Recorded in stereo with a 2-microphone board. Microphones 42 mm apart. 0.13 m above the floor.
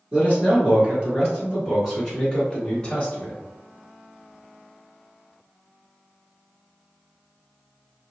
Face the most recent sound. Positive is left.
turn(degrees=25)  # may be behind; listen again after turning